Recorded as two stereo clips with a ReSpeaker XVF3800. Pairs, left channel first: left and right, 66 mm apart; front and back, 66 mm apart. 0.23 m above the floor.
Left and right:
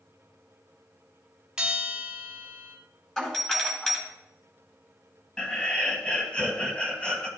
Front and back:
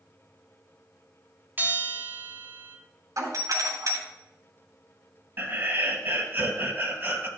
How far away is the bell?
About 1.9 m.